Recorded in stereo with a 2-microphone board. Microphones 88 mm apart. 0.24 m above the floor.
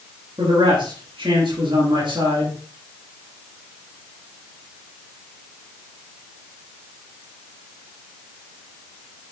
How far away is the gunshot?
I don't hear a gunshot.